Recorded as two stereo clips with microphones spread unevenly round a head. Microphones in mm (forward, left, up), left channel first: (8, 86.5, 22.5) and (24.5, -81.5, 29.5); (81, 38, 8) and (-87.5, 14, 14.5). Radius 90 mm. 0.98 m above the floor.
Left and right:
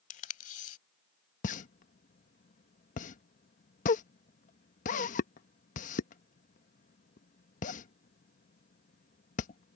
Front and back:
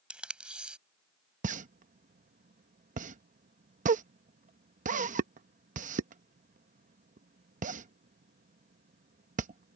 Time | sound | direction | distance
0.1 | tape being pulled | 110° left | ?
1.4 | a pop | 145° left | ?